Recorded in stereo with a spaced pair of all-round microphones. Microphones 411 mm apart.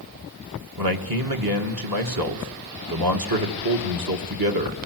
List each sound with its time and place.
0.8 s a man speaking: 60° right (ahead or behind), 1.9 m